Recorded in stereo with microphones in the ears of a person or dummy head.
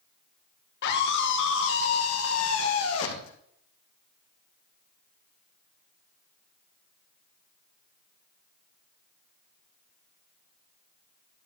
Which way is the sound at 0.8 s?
55° left (ahead or behind).